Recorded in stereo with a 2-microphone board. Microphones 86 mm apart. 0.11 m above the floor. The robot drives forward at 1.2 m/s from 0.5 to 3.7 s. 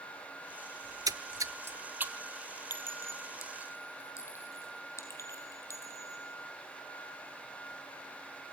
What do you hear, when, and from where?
0.8 s a splash: 35° right (ahead or behind), 0.7 m; by 2.4 s 15° right (ahead or behind), 1.5 m
2.7 s a clink: 50° left (ahead or behind), 1.9 m; by 6.3 s 30° left (ahead or behind), 2.5 m